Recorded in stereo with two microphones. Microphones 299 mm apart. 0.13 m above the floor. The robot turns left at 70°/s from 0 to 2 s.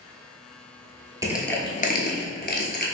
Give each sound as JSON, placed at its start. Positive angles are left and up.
{"t": 1.2, "sound": "crushing", "side_deg": -10, "distance_m": 0.7}